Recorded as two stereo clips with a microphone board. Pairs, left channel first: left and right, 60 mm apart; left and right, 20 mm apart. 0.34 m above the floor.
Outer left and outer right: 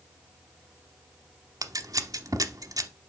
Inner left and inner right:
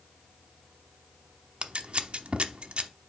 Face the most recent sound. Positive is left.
turn(degrees=-80)